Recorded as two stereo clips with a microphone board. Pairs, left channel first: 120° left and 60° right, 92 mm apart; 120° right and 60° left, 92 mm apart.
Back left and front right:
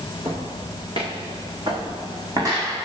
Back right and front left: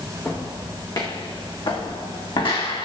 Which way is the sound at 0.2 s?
70° right.